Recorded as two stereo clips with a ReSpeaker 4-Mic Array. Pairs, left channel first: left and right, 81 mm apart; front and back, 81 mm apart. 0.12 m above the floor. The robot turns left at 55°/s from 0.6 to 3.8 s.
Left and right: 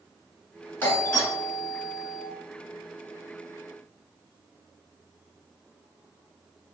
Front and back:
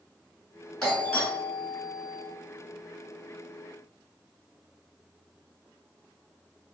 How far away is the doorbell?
About 2 m.